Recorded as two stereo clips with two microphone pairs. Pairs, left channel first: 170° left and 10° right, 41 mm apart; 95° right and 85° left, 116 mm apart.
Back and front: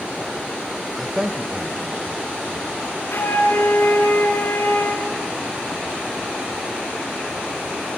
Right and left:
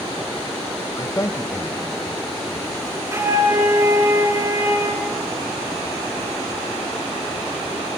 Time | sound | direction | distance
1.0 | a man speaking | 110° right | 0.8 m
3.1 | a flute | 145° left | 3 m